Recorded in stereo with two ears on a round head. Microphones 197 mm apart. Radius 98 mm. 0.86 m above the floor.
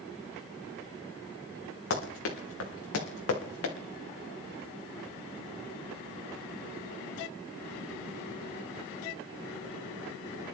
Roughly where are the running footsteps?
Left.